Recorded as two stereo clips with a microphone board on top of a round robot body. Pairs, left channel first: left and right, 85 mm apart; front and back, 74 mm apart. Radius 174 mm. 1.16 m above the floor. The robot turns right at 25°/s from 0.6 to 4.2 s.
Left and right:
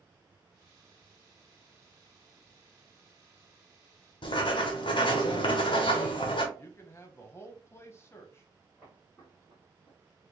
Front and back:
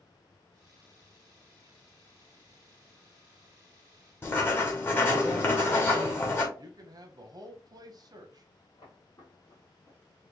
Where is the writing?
60° left, 0.5 m.